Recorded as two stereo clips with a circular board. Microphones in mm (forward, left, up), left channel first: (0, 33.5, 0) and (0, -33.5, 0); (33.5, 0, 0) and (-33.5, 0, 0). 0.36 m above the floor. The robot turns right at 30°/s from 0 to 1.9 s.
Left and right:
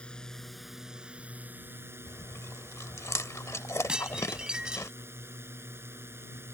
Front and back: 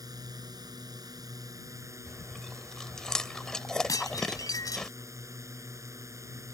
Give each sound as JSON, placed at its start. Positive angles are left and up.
{"t": 0.0, "sound": "a drone", "azimuth_deg": 165}
{"t": 2.1, "sound": "chewing", "azimuth_deg": 80}
{"t": 3.9, "sound": "dishes clattering", "azimuth_deg": -15}